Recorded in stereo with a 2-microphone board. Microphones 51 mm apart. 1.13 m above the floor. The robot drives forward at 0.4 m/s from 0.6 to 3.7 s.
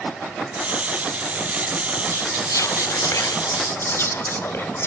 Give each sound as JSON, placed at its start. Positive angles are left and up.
{"t": 2.1, "sound": "whispering", "side_deg": 65, "distance_m": 0.6}